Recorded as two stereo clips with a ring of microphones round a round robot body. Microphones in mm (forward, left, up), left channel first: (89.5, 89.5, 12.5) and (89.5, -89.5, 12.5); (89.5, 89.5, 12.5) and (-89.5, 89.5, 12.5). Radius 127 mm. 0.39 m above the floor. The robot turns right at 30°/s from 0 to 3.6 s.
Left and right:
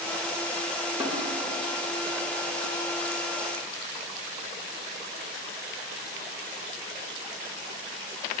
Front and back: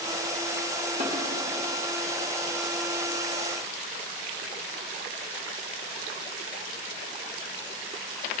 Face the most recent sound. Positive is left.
turn(degrees=-90)